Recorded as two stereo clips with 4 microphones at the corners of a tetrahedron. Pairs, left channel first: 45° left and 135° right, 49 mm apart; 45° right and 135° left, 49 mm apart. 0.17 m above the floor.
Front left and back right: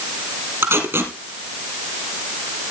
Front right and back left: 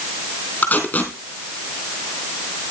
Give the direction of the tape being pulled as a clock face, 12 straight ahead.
3 o'clock.